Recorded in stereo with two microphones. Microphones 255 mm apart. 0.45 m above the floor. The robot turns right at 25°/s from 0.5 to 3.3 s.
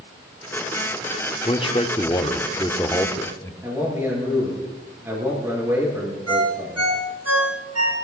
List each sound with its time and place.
1.4 s a man speaking: 20° left (ahead or behind), 1.0 m; by 3.5 s 10° left (ahead or behind), 1.0 m
3.6 s a man speaking: 10° right (ahead or behind), 8 m
6.3 s a ringtone: 75° right (ahead or behind), 4 m